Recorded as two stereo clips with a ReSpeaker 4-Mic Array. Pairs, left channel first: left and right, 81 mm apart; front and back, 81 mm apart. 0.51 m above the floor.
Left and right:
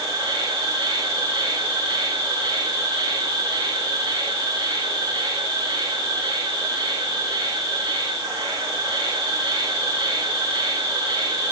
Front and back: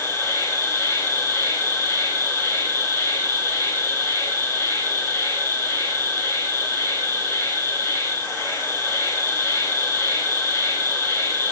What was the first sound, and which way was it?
An insect, 55° right.